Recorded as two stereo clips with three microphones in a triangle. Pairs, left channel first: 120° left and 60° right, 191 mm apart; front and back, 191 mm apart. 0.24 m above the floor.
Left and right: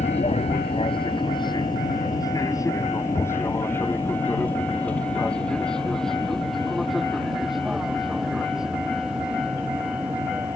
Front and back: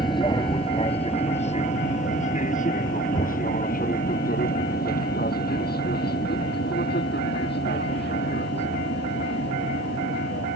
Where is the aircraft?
65° left; by 10.6 s 20° left.